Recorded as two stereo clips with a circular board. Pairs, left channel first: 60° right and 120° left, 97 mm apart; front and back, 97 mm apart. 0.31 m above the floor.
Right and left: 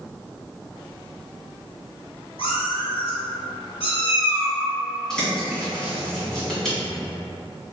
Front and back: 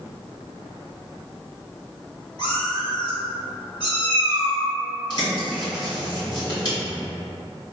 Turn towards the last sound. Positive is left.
turn(degrees=25)